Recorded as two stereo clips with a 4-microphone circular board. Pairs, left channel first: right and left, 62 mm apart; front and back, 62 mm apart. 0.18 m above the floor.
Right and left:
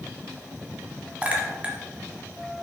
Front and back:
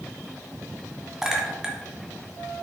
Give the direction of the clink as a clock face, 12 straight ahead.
8 o'clock.